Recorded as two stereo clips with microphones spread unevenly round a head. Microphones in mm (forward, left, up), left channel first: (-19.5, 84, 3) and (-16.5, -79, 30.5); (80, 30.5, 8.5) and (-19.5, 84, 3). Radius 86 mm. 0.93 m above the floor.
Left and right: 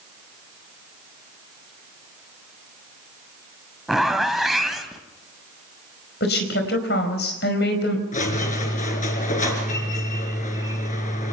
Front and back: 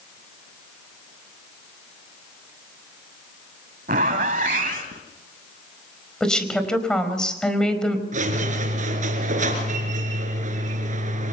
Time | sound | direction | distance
3.9 | a zipper | 175° right | 1.6 m
6.2 | a woman speaking | 55° left | 4.5 m
8.1 | a squeak | 140° left | 4 m